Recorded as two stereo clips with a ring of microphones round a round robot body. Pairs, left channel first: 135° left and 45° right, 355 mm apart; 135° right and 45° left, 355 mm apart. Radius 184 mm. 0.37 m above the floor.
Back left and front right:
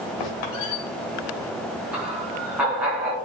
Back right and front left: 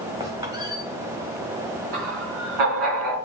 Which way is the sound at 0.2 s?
125° left.